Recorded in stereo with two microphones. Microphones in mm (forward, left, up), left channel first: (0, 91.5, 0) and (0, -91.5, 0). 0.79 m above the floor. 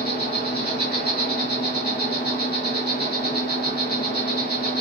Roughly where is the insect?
Left.